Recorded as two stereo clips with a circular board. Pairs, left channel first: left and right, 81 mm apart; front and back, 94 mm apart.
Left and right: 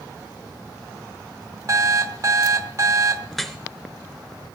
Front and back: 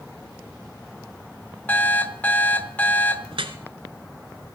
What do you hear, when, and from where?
1.7 s an alarm clock: 65° right, 0.9 m
3.3 s dripping: straight behind, 1.1 m